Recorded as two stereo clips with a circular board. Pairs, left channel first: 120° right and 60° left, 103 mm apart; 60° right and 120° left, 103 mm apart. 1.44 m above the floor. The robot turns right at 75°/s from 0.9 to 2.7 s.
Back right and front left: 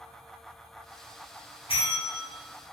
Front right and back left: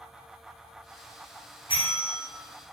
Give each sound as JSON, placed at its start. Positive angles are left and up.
{"t": 1.7, "sound": "a bell", "azimuth_deg": -100, "distance_m": 1.2}